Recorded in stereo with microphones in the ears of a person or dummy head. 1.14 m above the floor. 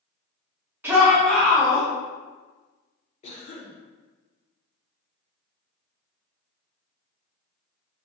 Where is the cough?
35° left (ahead or behind), 1.1 m.